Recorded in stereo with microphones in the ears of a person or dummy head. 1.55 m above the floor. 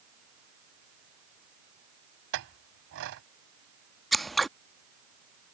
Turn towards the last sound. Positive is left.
turn(degrees=0)  # may be behind; listen again after turning